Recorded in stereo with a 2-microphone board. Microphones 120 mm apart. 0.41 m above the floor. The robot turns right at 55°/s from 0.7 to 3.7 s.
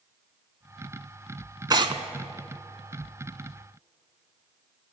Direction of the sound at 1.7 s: 35° right (ahead or behind).